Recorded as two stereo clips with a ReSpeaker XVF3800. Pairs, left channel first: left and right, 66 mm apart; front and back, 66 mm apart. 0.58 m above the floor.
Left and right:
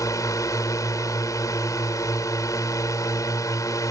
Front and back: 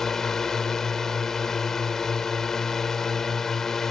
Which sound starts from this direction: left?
A drone, at 0.0 s.